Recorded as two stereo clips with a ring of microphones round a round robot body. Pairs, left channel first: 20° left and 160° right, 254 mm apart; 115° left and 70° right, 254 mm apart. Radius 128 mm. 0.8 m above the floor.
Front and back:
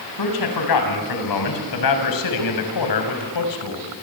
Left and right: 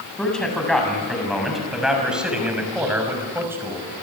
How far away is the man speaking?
About 7 m.